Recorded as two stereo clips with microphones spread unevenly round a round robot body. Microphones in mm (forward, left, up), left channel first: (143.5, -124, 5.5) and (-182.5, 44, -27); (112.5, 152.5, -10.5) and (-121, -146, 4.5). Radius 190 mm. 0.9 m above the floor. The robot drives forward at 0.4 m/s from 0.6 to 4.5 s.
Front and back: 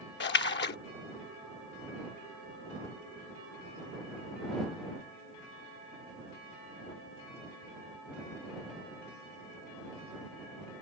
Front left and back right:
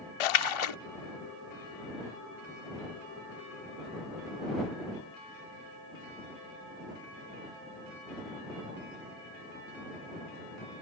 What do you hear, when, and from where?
0.2 s a splash: 35° left; by 0.8 s 40° left